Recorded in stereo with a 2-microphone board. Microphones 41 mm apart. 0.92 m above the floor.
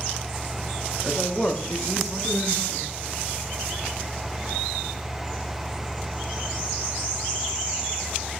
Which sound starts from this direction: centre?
A man speaking, at 1.0 s.